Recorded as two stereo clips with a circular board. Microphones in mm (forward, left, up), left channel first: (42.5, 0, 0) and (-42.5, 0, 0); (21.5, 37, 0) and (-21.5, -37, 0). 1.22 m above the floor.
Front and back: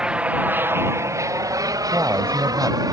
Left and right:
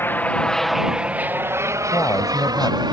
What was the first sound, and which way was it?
An aircraft, 105° left.